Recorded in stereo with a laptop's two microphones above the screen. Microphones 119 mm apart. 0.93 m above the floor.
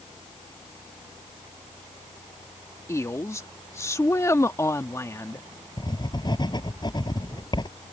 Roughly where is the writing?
Left.